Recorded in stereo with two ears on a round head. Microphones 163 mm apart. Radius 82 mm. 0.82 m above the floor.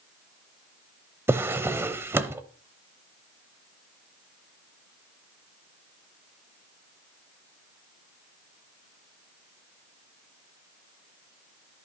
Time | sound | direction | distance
1.3 | a drawer | 15° right (ahead or behind) | 0.7 m